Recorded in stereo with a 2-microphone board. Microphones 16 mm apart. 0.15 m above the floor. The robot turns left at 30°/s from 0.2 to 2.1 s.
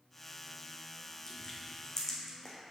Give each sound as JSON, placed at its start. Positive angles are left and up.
{"t": 1.3, "sound": "crushing", "side_deg": 55, "distance_m": 1.8}